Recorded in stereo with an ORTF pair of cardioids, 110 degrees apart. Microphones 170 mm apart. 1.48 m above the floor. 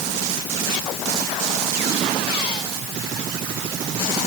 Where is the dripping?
I don't hear dripping.